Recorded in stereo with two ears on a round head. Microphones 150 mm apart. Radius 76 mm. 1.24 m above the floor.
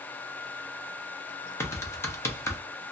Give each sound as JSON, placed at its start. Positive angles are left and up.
{"t": 1.6, "sound": "typing on a keyboard", "side_deg": 15, "distance_m": 0.5}